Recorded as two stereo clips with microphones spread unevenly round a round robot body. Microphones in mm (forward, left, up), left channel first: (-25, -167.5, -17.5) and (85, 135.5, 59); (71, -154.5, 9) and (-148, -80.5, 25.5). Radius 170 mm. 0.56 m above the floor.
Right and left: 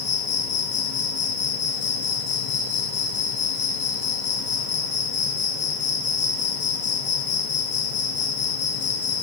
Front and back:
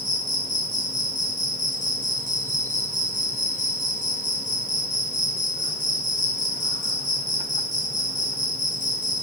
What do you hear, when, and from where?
0.0 s an insect: 70° right, 1.8 m